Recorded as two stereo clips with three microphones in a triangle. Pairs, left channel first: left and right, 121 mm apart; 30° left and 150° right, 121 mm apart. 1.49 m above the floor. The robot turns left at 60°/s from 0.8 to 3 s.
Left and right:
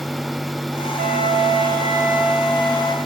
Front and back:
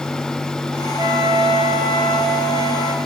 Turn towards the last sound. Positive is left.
turn(degrees=150)